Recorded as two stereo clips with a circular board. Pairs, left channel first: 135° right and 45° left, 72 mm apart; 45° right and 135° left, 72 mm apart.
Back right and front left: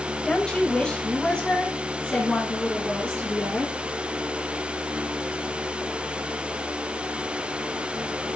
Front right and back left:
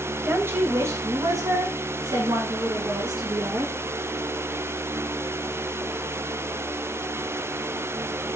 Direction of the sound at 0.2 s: 160° left.